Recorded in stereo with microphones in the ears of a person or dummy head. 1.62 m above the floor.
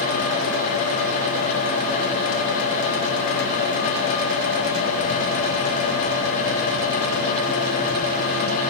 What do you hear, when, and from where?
Only background noise.